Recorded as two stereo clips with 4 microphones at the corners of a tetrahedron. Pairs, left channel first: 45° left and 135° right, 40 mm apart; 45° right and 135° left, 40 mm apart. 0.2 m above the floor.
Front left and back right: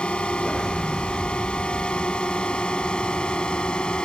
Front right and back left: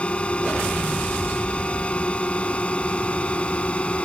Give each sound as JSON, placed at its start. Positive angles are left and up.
{"t": 0.0, "sound": "a drone", "azimuth_deg": 0}